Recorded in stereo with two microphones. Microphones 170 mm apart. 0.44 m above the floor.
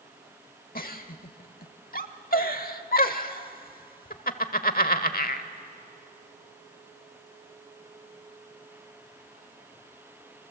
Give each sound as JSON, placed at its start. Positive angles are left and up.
{"t": 0.8, "sound": "a giggle", "side_deg": 60, "distance_m": 1.0}